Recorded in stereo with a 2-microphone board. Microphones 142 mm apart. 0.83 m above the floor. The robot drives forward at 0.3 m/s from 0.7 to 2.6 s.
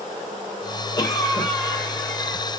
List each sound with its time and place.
1.0 s a cough: 25° left (ahead or behind), 0.8 m; by 2.4 s 20° left (ahead or behind), 1.2 m